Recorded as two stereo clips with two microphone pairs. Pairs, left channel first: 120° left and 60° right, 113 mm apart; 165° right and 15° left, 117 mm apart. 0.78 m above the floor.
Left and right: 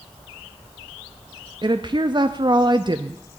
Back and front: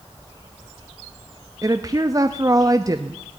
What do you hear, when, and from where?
1.6 s a woman speaking: 35° right, 0.6 m